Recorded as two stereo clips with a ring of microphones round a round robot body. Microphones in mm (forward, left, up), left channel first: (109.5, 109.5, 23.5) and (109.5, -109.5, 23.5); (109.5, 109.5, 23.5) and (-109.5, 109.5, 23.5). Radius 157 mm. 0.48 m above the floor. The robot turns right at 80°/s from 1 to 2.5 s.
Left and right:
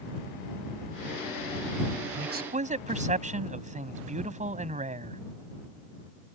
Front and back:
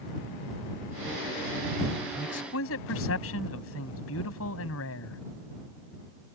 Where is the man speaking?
65° right; by 5.2 s 35° right.